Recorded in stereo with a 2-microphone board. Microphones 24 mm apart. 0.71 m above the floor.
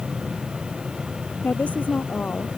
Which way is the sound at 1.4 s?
80° left.